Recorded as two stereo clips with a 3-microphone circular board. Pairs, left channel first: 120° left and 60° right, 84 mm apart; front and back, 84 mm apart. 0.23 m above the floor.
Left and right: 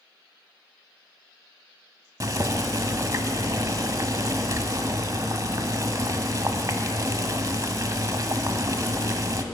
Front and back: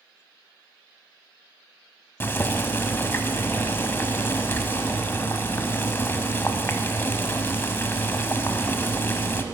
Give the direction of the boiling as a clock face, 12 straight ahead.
2 o'clock.